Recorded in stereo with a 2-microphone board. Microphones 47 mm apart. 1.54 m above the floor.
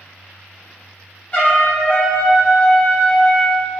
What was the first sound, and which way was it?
A trumpet, 35° left (ahead or behind).